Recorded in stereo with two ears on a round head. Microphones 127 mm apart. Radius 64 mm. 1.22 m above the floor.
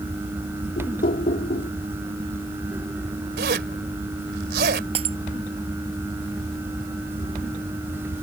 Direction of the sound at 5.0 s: 45° right (ahead or behind).